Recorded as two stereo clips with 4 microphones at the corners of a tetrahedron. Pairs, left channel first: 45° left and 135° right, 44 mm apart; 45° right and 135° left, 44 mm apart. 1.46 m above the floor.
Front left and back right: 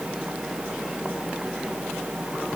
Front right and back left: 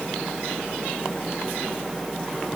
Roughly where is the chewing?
No chewing in this recording.